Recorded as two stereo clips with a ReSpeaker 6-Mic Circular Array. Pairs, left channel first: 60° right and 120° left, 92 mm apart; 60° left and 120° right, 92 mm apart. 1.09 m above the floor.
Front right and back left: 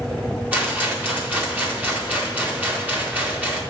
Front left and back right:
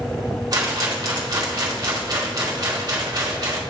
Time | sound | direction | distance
0.5 | a rattle | 170° right | 2.5 m